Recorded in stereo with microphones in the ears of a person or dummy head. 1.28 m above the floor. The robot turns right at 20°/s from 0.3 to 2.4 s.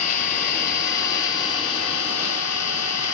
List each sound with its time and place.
0.0 s an engine running: 45° left, 2.5 m; by 3.1 s 85° left, 2.5 m